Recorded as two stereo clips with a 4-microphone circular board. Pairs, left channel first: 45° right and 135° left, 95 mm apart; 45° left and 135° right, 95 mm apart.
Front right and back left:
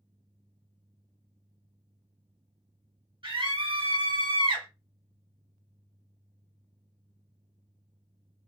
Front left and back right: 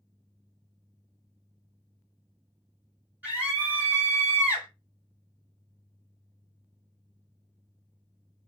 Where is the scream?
155° left, 1.4 m.